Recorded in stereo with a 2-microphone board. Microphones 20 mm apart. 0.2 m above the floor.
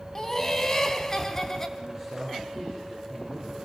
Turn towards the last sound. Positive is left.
turn(degrees=10)  # may be behind; listen again after turning